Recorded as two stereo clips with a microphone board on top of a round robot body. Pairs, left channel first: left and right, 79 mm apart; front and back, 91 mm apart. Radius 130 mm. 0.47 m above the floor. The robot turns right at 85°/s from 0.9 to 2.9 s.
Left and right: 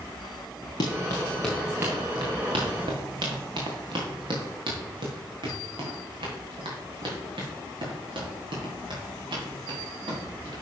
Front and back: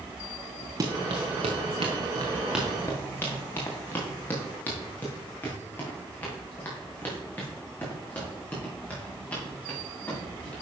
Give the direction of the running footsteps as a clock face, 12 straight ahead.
8 o'clock.